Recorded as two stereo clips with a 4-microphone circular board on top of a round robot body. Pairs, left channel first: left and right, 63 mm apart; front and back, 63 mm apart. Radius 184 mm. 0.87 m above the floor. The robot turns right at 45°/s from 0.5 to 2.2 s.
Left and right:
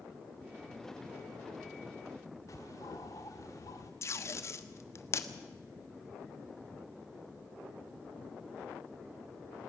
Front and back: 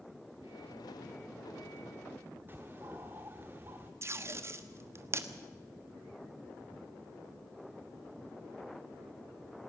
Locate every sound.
2.5 s a bird: 120° left, 0.5 m
4.0 s tape being pulled: 130° left, 1.3 m